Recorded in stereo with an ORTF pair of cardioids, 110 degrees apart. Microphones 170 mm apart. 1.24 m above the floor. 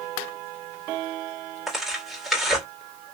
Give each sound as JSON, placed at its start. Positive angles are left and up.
{"t": 1.7, "sound": "tearing paper", "azimuth_deg": 0, "distance_m": 2.5}